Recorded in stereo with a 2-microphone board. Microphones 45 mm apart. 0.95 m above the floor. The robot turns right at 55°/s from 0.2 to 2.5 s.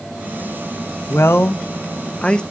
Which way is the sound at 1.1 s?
75° left (ahead or behind).